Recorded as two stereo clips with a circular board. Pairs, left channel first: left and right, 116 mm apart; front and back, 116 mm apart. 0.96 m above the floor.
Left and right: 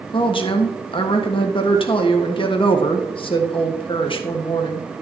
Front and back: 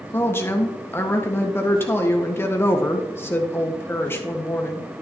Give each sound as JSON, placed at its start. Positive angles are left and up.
{"t": 0.1, "sound": "a woman speaking", "azimuth_deg": 65, "distance_m": 1.4}